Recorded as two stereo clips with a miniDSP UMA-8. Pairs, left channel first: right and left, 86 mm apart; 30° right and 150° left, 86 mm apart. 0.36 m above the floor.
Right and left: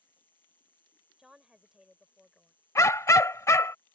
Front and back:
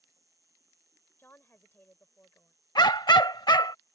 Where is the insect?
160° right.